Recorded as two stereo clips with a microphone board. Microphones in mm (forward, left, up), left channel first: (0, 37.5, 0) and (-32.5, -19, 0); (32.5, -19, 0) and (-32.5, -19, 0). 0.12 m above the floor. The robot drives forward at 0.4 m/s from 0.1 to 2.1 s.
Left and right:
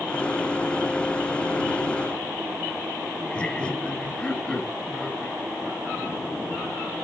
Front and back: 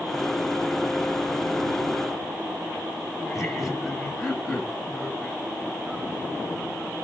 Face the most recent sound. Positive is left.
turn(degrees=95)